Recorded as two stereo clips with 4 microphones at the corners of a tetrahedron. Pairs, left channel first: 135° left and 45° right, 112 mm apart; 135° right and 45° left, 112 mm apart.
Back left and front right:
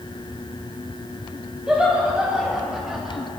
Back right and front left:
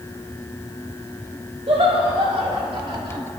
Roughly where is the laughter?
Ahead left.